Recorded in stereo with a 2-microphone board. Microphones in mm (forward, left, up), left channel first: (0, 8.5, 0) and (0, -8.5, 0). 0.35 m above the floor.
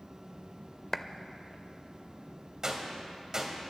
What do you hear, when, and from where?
0.9 s a clap: 15° left (ahead or behind), 0.7 m
2.6 s a gunshot: 35° right (ahead or behind), 2 m